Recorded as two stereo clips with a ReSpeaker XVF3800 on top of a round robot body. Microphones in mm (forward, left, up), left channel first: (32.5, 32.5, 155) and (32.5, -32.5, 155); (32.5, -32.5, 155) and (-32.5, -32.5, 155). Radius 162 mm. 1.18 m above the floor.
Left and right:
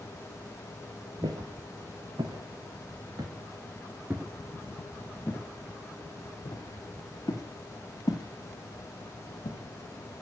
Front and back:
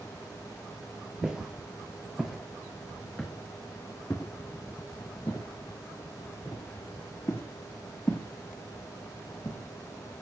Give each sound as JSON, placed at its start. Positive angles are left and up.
{"t": 1.2, "sound": "footsteps", "azimuth_deg": -100, "distance_m": 1.9}